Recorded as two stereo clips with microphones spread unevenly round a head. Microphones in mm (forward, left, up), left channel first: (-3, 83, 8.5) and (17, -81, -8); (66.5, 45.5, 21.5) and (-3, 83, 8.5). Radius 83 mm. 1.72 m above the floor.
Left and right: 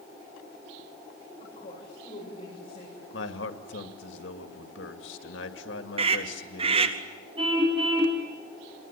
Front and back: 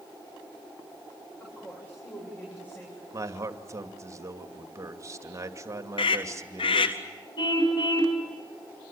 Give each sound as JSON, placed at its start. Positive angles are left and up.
{"t": 1.4, "sound": "a woman speaking", "azimuth_deg": 40, "distance_m": 8.5}
{"t": 3.1, "sound": "a man speaking", "azimuth_deg": 100, "distance_m": 2.5}
{"t": 6.0, "sound": "a scream", "azimuth_deg": -25, "distance_m": 1.3}
{"t": 7.4, "sound": "a car horn", "azimuth_deg": -20, "distance_m": 5.5}